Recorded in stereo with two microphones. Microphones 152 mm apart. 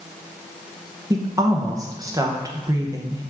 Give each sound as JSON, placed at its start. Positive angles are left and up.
{"t": 1.1, "sound": "a woman speaking", "side_deg": -25, "distance_m": 0.7}